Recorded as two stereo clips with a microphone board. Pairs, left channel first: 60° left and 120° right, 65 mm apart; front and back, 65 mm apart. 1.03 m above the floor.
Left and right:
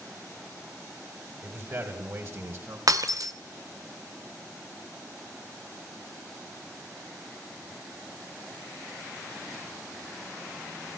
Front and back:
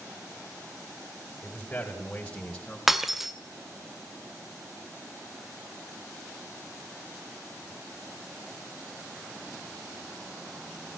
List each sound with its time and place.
1.4 s a man speaking: 70° right, 4.5 m; by 2.8 s 80° right, 4 m
2.9 s breaking glass: 95° right, 1.7 m